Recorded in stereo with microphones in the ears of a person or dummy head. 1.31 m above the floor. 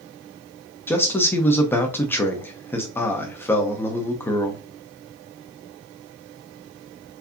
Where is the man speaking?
15° left (ahead or behind), 0.7 m.